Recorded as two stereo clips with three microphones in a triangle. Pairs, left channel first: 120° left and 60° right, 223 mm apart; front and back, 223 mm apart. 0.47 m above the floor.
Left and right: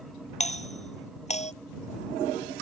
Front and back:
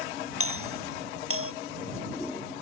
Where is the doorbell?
Straight behind.